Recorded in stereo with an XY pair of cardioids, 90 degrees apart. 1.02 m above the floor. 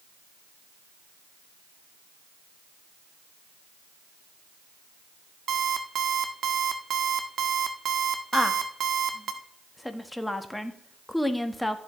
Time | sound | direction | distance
5.5 | an alarm clock | 60° right | 1.2 m
8.3 | a woman speaking | 10° left | 1.4 m